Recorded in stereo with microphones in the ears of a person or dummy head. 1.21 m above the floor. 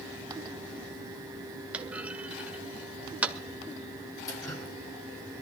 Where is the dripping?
25° left (ahead or behind), 4.5 m.